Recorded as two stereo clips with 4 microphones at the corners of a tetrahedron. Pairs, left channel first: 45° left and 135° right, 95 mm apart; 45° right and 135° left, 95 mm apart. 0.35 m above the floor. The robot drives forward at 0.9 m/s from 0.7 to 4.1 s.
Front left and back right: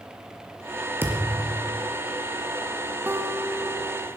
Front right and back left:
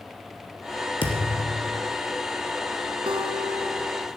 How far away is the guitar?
About 1.1 m.